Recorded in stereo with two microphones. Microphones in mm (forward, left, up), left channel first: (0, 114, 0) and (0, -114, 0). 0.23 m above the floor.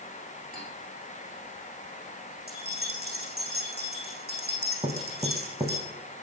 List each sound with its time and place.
0.5 s cutlery clinking: 40° right (ahead or behind), 9 m
2.5 s keys jangling: 45° right (ahead or behind), 8 m
4.8 s knocking: 20° right (ahead or behind), 1.3 m